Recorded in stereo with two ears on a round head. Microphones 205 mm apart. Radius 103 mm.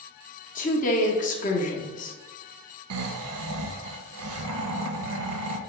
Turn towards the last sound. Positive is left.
turn(degrees=-70)  # may be behind; listen again after turning